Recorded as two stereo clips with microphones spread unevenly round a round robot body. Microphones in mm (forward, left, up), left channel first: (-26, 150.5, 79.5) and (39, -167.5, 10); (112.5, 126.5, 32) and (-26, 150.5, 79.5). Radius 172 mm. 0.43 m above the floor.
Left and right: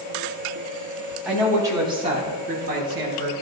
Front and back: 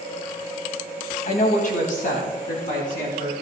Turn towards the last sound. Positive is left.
turn(degrees=-25)